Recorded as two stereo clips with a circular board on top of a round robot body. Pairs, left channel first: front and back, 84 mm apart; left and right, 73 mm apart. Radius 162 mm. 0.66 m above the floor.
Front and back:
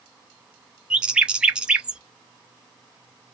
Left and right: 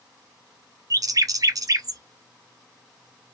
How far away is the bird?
About 0.6 m.